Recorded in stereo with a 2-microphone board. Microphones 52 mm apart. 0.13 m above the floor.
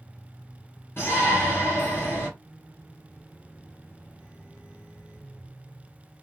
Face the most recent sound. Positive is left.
turn(degrees=45)  # may be behind; listen again after turning